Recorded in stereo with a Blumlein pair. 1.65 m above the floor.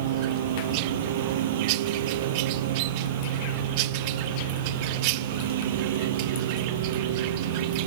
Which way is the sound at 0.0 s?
55° right.